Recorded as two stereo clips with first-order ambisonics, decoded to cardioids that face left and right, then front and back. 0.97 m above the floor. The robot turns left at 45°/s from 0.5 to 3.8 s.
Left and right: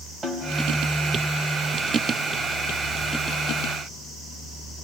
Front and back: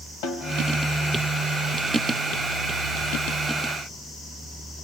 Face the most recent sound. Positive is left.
turn(degrees=-155)